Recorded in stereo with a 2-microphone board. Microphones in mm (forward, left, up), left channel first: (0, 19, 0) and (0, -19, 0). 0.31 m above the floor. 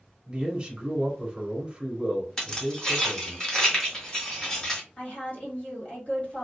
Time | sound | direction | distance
0.3 | a man speaking | 30° right (ahead or behind) | 1.1 m
2.4 | keys jangling | 20° left (ahead or behind) | 1.5 m
5.0 | a woman speaking | 40° left (ahead or behind) | 1.5 m